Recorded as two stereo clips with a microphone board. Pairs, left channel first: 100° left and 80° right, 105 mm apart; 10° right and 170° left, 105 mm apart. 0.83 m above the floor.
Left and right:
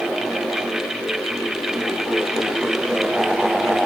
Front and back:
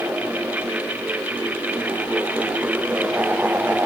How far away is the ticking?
No ticking in this recording.